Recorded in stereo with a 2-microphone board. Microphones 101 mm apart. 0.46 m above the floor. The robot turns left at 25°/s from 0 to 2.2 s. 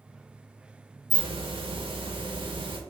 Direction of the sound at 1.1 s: 60° right (ahead or behind).